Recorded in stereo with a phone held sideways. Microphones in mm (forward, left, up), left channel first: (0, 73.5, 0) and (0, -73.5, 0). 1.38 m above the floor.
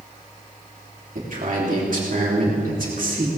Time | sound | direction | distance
1.1 | a man speaking | 60° right (ahead or behind) | 3 m